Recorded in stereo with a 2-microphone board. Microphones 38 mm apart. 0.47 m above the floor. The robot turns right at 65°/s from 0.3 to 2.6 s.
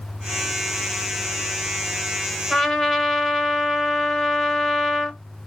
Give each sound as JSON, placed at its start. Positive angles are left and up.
{"t": 2.5, "sound": "a trumpet", "side_deg": -5, "distance_m": 1.1}